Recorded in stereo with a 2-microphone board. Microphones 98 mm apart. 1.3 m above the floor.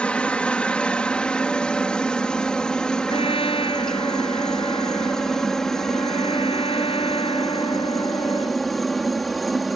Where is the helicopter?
10° left (ahead or behind); by 9.8 s centre (ahead or behind).